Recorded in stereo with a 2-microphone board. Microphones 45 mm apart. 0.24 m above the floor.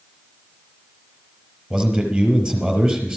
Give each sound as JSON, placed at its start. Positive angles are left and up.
{"t": 1.7, "sound": "a man speaking", "side_deg": -10, "distance_m": 4.5}